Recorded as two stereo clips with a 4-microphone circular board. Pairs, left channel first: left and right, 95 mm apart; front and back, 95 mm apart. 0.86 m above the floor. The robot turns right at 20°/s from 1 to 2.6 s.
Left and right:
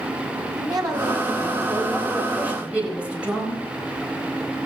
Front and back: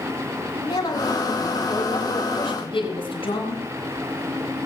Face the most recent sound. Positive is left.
turn(degrees=-15)